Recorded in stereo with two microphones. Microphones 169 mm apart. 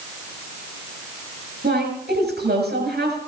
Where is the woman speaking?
85° right, 7 m.